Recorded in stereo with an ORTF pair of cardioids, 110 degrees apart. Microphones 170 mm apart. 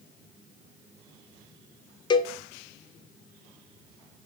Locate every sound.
2.1 s a cowbell: 25° left, 0.5 m